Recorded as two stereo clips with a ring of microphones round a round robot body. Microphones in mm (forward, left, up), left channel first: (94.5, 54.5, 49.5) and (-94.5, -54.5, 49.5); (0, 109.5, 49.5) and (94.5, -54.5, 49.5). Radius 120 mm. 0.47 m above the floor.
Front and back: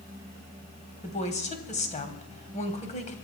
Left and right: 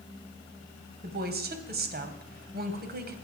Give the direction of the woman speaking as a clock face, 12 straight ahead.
1 o'clock.